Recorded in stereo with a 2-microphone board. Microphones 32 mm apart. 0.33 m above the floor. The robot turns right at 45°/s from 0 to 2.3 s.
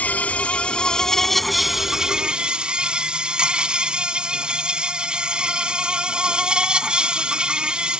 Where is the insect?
110° left; by 8.0 s 145° right.